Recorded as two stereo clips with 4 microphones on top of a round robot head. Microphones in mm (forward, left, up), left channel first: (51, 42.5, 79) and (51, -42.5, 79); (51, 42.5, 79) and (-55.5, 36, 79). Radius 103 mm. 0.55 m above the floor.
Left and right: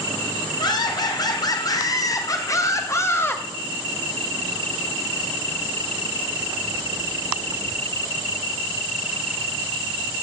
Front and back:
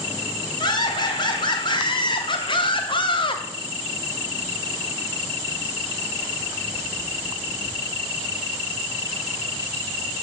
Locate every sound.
0.6 s laughter: 50° left, 2.5 m; by 3.4 s 30° left, 1.2 m